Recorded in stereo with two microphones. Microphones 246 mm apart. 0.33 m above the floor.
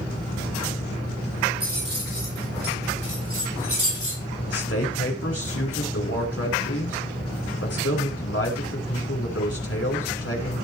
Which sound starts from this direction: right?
Keys jangling, at 1.6 s.